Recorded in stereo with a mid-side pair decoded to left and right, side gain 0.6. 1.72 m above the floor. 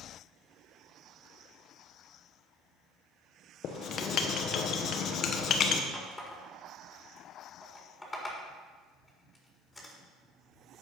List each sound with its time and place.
3.6 s writing: 50° left, 1.5 m
5.9 s a running tap: 10° left, 4 m